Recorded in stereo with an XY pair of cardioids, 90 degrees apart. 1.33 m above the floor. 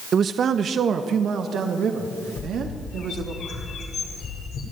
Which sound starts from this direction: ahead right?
A man speaking, at 0.1 s.